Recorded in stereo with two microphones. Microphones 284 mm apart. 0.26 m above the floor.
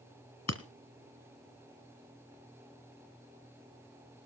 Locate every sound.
0.5 s breaking glass: 65° left (ahead or behind), 1.1 m